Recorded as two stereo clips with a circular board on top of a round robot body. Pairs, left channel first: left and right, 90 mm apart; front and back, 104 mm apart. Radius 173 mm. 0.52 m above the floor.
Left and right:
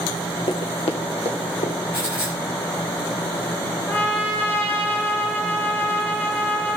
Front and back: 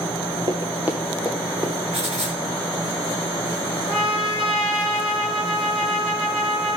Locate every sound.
0.5 s running footsteps: 130° left, 0.9 m; by 1.8 s 85° left, 2.5 m
1.9 s writing: 155° left, 3.5 m
3.9 s a trumpet: 160° left, 5 m